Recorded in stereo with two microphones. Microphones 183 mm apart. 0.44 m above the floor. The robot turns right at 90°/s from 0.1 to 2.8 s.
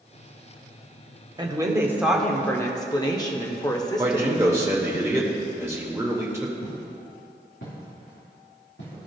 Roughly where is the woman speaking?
Right.